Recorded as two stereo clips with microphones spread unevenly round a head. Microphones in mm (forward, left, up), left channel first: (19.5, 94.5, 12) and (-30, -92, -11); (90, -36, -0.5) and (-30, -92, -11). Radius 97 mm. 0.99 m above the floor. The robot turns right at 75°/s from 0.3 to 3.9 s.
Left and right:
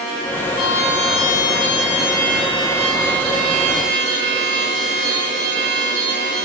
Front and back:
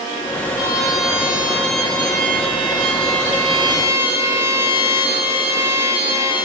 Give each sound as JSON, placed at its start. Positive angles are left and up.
{"t": 0.6, "sound": "a trumpet", "azimuth_deg": 30, "distance_m": 6.5}